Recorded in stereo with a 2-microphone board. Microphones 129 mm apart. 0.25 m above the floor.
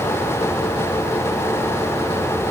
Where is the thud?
No thud in this recording.